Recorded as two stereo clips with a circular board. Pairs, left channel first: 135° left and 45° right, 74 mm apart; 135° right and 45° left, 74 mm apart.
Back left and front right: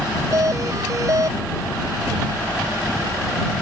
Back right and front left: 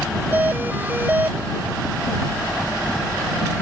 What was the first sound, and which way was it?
A doorbell, 15° right.